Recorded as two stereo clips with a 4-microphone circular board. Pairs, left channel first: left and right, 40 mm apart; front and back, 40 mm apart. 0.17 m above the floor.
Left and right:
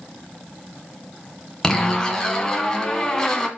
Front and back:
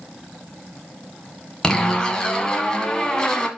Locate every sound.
1.6 s a zipper: 40° left, 1.5 m